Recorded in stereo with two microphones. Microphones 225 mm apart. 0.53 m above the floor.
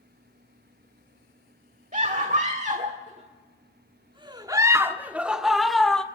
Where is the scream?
35° right (ahead or behind), 1.6 m; by 6.0 s 5° left (ahead or behind), 1.5 m.